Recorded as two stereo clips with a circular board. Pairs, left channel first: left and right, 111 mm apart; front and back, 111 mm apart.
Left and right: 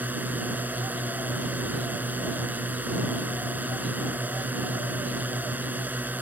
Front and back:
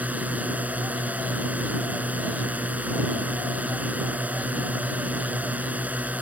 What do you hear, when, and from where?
0.0 s a drone: 135° right